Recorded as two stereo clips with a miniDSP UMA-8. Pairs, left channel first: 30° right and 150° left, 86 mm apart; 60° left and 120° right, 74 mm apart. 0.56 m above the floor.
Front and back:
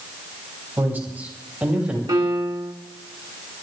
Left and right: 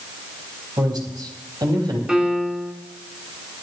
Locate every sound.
0.8 s a man speaking: 145° right, 4.5 m; by 2.0 s 135° right, 4 m
2.1 s a piano: 165° left, 1.7 m